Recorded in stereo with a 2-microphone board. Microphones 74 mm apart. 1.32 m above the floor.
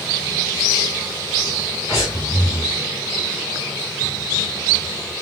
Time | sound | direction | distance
1.9 | breathing | 50° left (ahead or behind) | 1.6 m